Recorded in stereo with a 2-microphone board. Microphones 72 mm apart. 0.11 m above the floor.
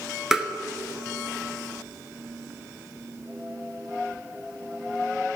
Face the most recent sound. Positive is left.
turn(degrees=-5)  # may be behind; listen again after turning